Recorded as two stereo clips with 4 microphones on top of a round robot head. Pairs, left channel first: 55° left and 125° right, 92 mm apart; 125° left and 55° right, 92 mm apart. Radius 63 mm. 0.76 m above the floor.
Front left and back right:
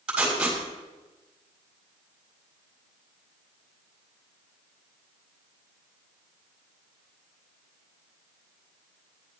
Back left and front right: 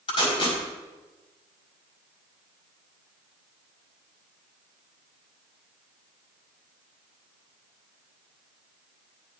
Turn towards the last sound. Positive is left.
turn(degrees=155)